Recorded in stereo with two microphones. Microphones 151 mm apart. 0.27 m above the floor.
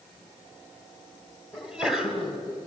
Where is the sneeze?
5° right (ahead or behind), 1.6 m.